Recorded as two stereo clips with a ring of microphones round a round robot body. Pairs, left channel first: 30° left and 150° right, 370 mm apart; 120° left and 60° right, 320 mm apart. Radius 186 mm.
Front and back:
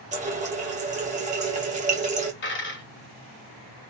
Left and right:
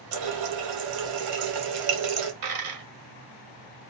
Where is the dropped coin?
30° right, 1.9 m.